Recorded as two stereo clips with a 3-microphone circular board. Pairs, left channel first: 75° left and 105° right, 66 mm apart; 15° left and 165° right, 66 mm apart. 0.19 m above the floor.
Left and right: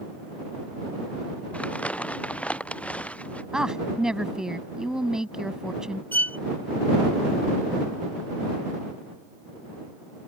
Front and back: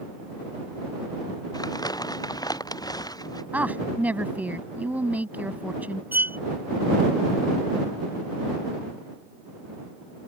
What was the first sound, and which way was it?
Crumpling, 5° left.